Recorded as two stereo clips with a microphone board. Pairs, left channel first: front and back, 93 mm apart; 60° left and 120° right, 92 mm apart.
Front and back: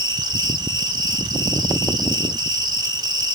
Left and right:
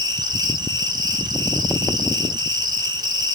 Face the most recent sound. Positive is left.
turn(degrees=-150)